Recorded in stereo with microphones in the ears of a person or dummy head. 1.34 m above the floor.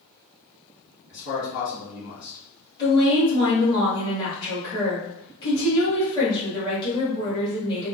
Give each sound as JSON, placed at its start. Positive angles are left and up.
{"t": 1.1, "sound": "a man speaking", "side_deg": 60, "distance_m": 1.8}
{"t": 2.8, "sound": "a woman speaking", "side_deg": 25, "distance_m": 1.6}